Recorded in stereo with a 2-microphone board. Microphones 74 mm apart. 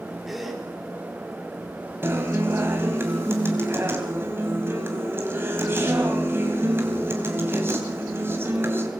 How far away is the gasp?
About 4 m.